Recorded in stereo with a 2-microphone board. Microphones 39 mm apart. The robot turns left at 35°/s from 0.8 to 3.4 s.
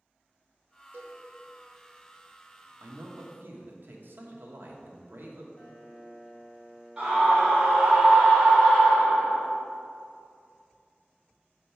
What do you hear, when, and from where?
0.9 s a cowbell: 60° right (ahead or behind), 1.1 m; by 1.2 s 50° right (ahead or behind), 1.1 m
2.8 s a man speaking: 80° right, 1.0 m; by 5.5 s 60° right (ahead or behind), 1.0 m
5.6 s a piano: 40° left (ahead or behind), 1.2 m
7.0 s a scream: 20° right (ahead or behind), 2.5 m